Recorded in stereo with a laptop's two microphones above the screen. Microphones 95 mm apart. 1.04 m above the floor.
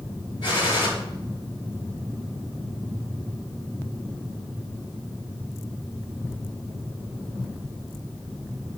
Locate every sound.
0.4 s a gunshot: 60° left (ahead or behind), 4.5 m